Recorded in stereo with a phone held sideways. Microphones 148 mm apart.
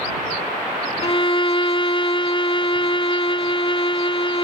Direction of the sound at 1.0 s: 40° left (ahead or behind).